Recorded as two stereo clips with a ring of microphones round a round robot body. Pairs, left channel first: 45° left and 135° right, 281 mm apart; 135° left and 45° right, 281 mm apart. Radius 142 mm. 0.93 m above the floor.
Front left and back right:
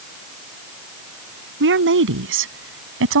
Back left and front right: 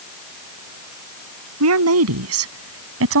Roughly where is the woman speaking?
Right.